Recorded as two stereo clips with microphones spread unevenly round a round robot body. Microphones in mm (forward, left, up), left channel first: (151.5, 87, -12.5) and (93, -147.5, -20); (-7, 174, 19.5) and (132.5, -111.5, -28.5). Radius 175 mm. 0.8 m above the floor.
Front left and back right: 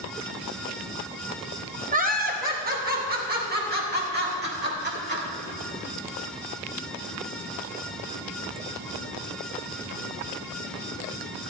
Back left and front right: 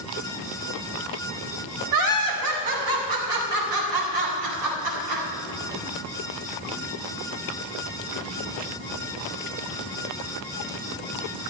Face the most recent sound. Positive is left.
turn(degrees=-60)